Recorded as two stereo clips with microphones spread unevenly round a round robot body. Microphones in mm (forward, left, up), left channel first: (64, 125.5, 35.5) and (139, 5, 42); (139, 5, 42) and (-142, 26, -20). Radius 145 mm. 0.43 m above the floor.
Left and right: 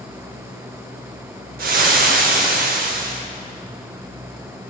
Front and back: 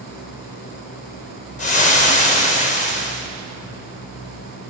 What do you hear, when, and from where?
1.6 s frying: 75° right, 0.6 m